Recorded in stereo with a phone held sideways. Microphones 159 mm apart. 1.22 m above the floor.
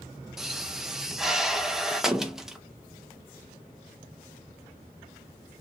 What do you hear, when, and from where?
0.4 s a pop: 5° right (ahead or behind), 0.6 m